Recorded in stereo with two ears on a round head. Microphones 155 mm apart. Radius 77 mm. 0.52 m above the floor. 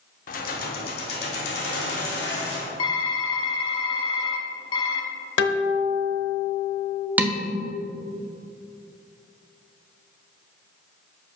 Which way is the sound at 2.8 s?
30° left (ahead or behind).